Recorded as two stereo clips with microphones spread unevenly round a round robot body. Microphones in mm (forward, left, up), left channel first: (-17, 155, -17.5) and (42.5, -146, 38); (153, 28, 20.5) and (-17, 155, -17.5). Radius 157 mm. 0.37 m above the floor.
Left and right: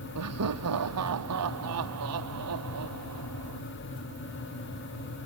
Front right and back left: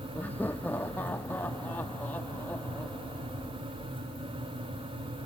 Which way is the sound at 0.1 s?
120° right.